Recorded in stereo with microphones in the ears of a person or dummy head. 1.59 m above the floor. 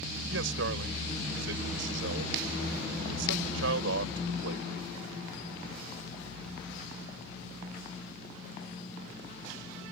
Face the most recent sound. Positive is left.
turn(degrees=-70)  # may be behind; listen again after turning